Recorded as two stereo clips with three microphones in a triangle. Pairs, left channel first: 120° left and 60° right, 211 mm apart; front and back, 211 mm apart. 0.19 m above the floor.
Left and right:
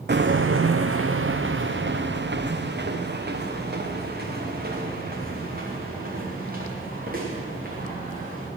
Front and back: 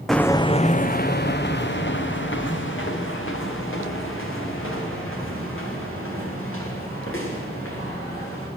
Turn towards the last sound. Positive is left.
turn(degrees=-10)